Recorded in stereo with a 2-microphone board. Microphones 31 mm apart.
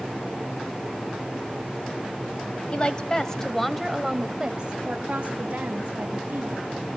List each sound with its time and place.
2.7 s a woman speaking: 35° left (ahead or behind), 1.2 m; by 6.7 s 55° right (ahead or behind), 2.0 m